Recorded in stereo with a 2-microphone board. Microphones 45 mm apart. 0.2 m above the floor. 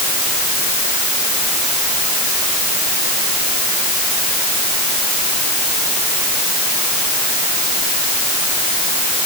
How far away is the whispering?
I don't hear whispering.